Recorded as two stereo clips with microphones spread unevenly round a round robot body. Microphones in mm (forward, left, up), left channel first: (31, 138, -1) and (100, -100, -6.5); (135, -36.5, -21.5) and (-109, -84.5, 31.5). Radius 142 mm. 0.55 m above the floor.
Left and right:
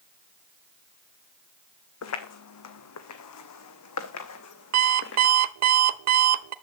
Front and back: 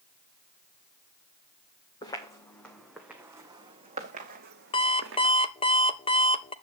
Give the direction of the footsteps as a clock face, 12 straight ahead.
9 o'clock.